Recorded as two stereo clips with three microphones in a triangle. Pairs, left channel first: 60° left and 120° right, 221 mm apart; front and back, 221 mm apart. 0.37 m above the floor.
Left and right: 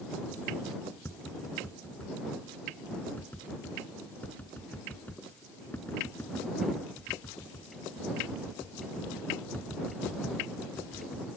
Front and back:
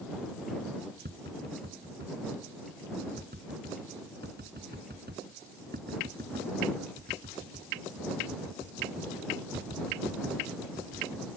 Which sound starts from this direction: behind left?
Tapping, at 1.1 s.